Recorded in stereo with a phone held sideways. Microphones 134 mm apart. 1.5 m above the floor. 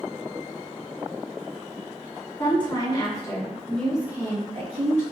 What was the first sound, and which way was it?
A woman speaking, 40° left (ahead or behind).